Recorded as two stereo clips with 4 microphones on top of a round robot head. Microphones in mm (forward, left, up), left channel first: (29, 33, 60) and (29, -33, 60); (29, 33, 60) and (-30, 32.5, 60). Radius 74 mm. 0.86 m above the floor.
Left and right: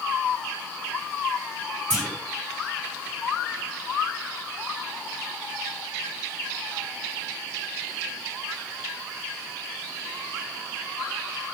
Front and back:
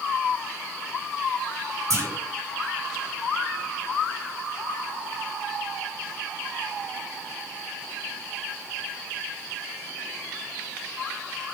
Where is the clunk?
165° right, 1.4 m.